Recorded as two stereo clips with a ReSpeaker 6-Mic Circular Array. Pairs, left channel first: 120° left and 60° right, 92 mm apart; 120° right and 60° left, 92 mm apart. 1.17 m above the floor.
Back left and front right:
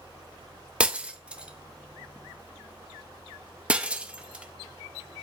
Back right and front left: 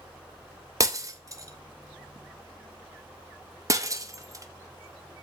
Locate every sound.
0.8 s breaking glass: 15° left, 0.6 m